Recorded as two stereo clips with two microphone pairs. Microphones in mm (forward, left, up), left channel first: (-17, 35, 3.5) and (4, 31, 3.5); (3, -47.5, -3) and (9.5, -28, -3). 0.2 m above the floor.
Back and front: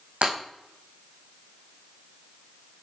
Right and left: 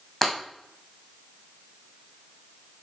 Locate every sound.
0.2 s breaking glass: 25° right, 4 m